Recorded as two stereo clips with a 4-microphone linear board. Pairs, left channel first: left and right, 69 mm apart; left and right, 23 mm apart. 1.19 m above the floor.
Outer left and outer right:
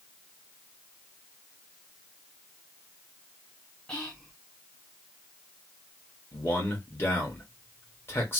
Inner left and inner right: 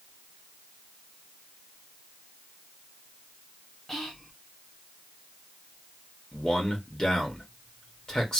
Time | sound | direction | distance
3.9 | whispering | 15° left (ahead or behind) | 1.7 m
6.3 | a man speaking | 35° left (ahead or behind) | 1.6 m